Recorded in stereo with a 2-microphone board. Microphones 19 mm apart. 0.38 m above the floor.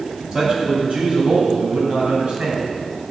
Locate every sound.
0.3 s a man speaking: 45° right (ahead or behind), 2.5 m; by 2.8 s 65° right (ahead or behind), 2.5 m